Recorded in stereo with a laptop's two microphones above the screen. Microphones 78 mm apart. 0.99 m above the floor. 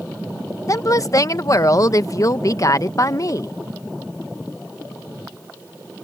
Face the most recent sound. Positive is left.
turn(degrees=45)  # may be behind; listen again after turning